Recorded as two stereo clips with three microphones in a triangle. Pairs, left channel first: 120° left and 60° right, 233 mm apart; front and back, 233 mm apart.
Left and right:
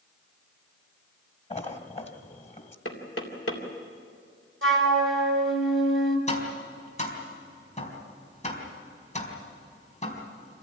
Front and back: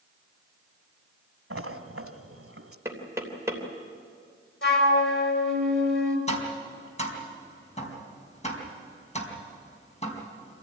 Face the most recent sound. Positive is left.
turn(degrees=60)